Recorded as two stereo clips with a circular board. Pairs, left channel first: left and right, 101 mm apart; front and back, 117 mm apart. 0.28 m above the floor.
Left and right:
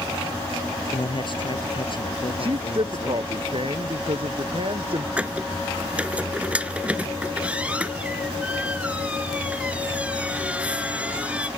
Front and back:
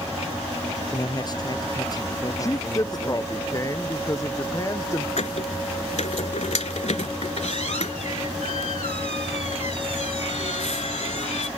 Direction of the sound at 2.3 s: 60° right.